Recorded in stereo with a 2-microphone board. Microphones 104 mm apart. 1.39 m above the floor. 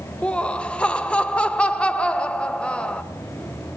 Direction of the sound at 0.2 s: 10° left (ahead or behind).